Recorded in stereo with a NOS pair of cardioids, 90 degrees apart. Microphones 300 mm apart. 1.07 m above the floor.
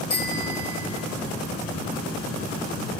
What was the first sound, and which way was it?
A bicycle bell, 40° left.